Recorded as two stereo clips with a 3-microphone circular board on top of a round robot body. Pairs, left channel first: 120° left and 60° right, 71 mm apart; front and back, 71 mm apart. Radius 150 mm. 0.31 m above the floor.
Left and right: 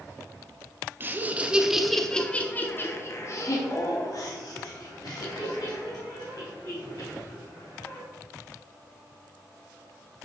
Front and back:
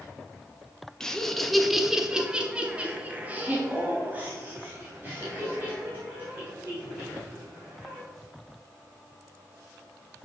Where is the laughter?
75° right, 1.0 m; by 8.0 s 120° left, 3.5 m.